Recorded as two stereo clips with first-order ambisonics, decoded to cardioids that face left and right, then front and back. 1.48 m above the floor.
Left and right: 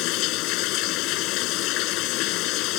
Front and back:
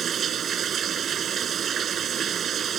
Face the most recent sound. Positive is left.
turn(degrees=120)